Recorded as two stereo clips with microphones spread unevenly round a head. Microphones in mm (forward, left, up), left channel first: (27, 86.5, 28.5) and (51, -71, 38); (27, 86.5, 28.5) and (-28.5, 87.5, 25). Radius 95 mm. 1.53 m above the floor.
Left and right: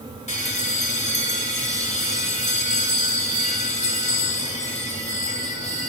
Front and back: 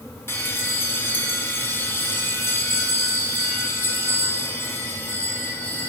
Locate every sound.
0.3 s a bell: 50° left, 4 m